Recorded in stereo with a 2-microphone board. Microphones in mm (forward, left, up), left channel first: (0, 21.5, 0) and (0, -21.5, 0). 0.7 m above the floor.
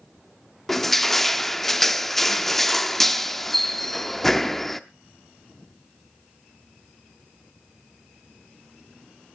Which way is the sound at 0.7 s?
5° left (ahead or behind).